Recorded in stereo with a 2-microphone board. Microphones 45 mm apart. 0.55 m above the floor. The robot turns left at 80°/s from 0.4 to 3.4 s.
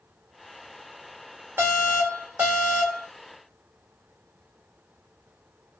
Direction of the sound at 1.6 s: 70° right.